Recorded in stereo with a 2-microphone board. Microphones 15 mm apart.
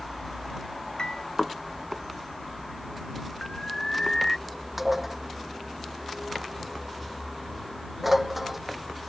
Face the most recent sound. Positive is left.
turn(degrees=-15)  # may be behind; listen again after turning